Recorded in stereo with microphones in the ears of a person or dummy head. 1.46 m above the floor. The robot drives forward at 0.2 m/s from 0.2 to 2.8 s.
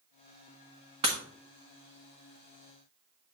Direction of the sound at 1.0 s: 25° right (ahead or behind).